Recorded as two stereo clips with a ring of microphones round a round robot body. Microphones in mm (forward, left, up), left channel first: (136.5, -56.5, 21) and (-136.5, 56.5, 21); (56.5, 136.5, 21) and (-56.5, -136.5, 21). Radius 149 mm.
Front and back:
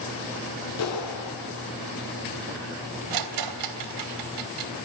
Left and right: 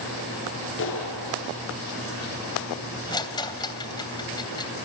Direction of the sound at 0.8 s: 20° left.